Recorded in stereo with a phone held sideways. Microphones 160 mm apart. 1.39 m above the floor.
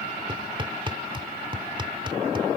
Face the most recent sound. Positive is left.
turn(degrees=-30)  # may be behind; listen again after turning